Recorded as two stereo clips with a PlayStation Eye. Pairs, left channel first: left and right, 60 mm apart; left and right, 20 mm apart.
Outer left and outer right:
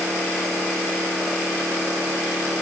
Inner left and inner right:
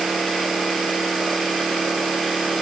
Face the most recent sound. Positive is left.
No sound to turn to.